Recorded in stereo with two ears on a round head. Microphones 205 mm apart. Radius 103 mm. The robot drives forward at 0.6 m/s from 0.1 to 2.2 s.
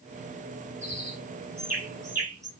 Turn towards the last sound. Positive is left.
turn(degrees=-15)  # may be behind; listen again after turning